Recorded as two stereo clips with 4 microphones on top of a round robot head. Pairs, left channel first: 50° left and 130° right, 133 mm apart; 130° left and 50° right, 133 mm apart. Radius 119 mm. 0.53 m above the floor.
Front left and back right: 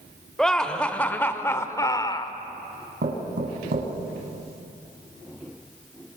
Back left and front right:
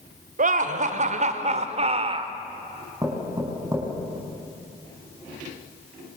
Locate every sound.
0.4 s laughter: 35° right, 2 m; by 2.3 s 5° right, 1.6 m
3.0 s knocking: 120° right, 5 m